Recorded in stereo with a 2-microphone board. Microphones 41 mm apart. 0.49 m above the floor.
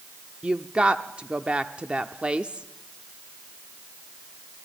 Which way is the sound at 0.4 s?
25° right (ahead or behind).